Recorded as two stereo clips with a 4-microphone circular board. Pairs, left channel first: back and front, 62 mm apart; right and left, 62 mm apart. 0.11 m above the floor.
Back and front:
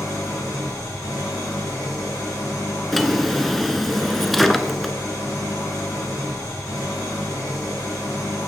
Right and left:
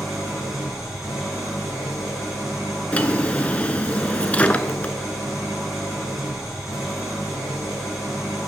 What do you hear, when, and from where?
0.0 s an engine running: 175° left, 4 m
2.9 s a drawer: 95° right, 0.7 m